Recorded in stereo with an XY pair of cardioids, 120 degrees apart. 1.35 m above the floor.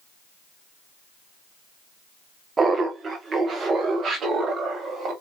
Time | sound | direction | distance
2.6 | laughter | 25° right | 0.8 m